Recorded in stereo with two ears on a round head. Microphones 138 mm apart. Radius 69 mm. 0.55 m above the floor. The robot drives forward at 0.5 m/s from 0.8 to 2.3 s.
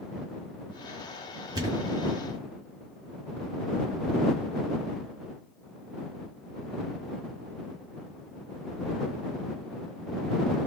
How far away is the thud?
About 2 m.